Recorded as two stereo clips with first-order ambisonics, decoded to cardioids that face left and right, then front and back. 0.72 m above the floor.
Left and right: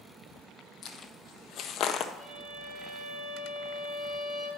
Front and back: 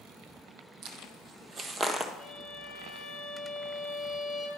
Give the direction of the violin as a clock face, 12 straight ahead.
4 o'clock.